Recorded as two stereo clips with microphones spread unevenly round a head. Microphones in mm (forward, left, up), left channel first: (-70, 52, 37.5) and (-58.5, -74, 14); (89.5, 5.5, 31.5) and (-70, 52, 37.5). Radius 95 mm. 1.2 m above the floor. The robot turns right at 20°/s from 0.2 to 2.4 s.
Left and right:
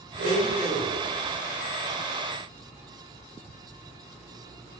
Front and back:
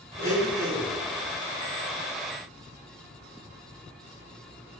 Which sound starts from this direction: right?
A blender, at 0.2 s.